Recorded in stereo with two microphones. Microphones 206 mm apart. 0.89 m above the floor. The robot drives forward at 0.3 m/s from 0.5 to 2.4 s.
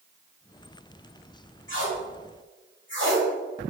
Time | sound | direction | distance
1.7 | tape being pulled | 75° left (ahead or behind) | 1.0 m